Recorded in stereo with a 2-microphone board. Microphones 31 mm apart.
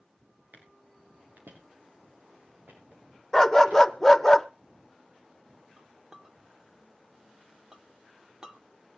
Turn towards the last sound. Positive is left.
turn(degrees=-25)  # may be behind; listen again after turning